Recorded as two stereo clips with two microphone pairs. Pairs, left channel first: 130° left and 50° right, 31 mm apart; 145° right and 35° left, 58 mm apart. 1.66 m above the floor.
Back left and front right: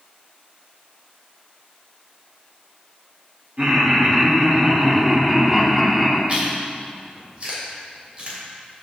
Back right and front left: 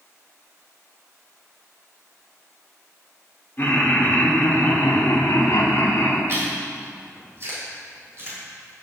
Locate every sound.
3.6 s laughter: 90° right, 2.5 m; by 6.2 s 135° right, 2 m
6.3 s chewing: 5° right, 3 m